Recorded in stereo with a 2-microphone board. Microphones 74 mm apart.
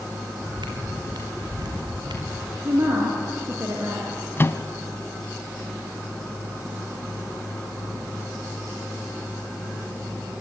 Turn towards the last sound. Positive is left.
turn(degrees=30)  # may be behind; listen again after turning